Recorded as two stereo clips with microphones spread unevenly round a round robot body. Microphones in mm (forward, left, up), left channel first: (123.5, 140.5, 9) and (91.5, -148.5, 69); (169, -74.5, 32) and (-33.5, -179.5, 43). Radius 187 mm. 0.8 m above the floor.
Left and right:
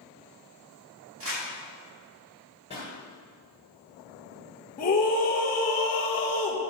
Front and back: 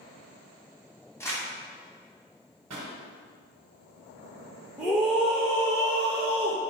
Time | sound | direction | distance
1.2 | crumpling | 50° right | 2.5 m
2.7 | a pop | 160° left | 1.3 m
4.8 | a scream | 115° left | 0.6 m